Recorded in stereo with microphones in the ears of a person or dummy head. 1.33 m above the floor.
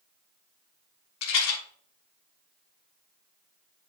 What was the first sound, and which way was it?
A rattle, 75° left (ahead or behind).